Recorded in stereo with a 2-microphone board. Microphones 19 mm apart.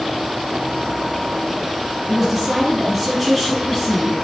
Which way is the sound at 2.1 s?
5° right (ahead or behind).